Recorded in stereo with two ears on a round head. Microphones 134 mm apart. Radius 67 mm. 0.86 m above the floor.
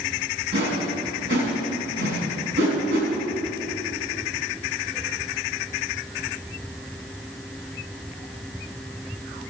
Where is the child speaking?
No child speaking in this recording.